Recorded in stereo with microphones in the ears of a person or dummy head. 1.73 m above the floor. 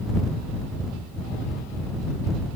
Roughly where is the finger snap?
No finger snap in this recording.